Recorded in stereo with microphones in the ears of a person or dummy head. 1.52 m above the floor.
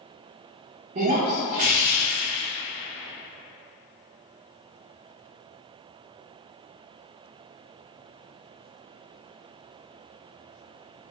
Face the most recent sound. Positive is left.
turn(degrees=-35)  # may be behind; listen again after turning